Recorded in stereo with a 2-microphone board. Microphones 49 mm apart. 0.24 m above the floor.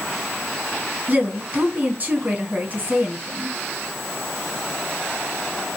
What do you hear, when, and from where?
1.1 s a woman speaking: 35° right (ahead or behind), 1.9 m